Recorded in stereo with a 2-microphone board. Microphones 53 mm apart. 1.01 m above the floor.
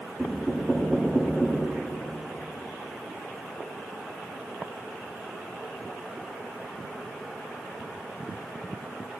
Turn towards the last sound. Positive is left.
turn(degrees=0)  # may be behind; listen again after turning